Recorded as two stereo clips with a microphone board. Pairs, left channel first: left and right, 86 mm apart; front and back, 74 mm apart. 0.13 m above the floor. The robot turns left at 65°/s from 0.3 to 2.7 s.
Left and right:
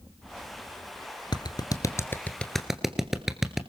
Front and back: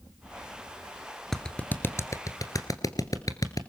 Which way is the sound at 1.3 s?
85° left.